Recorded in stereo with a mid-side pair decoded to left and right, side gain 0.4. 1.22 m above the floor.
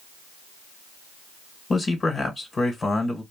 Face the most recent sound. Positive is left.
turn(degrees=40)